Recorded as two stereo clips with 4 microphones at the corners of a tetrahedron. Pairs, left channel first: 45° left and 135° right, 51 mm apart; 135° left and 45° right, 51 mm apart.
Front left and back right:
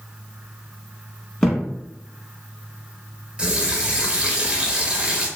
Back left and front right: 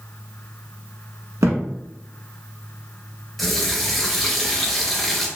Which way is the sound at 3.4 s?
145° right.